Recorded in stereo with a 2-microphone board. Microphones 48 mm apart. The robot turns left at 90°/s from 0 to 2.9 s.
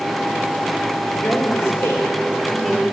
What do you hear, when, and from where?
1.2 s a woman speaking: 130° left, 3.5 m; by 2.8 s 20° right, 3.5 m